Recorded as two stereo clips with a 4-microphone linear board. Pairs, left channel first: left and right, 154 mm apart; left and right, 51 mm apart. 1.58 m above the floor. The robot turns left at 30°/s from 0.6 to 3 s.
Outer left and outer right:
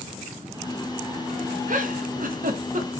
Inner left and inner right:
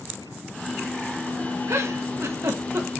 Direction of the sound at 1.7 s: 65° right (ahead or behind).